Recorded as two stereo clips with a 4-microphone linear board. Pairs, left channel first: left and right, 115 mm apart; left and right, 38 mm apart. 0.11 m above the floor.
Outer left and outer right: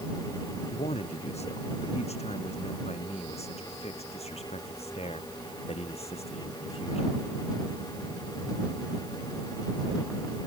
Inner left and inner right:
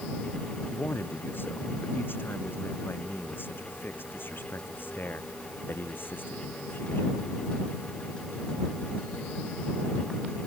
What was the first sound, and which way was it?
A man speaking, 65° left (ahead or behind).